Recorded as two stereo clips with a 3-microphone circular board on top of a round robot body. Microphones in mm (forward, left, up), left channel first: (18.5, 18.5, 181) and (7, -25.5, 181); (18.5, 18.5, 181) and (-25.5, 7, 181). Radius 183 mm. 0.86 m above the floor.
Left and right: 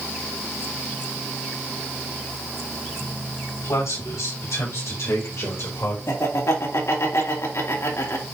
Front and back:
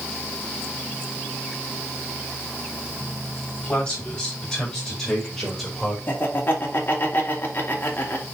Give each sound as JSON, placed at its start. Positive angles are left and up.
{"t": 3.6, "sound": "a man speaking", "azimuth_deg": 90, "distance_m": 5.5}
{"t": 6.1, "sound": "laughter", "azimuth_deg": 60, "distance_m": 3.5}